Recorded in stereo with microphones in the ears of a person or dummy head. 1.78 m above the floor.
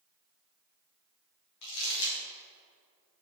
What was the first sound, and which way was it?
Crumpling, 55° left (ahead or behind).